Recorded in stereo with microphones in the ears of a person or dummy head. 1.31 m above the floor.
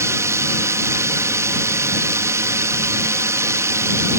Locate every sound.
0.0 s a drone: 15° right (ahead or behind)